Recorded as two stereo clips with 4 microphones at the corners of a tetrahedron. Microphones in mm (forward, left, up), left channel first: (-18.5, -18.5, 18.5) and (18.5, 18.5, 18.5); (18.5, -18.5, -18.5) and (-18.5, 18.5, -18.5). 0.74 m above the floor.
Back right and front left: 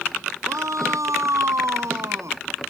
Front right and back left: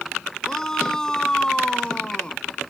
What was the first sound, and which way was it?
A shout, 35° left.